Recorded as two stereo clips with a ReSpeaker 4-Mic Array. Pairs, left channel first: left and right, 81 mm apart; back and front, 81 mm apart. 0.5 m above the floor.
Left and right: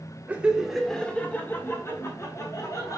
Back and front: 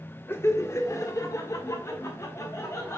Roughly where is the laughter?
Behind right.